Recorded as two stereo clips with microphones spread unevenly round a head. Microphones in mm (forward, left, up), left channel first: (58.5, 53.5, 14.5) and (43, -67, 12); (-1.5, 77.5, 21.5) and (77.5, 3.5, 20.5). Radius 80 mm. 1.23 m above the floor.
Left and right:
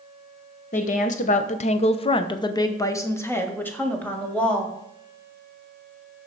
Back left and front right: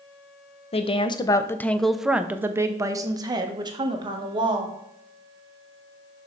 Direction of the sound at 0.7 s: 110° left.